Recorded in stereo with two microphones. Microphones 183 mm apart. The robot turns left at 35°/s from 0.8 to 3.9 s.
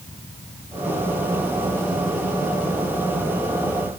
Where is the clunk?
I don't hear a clunk.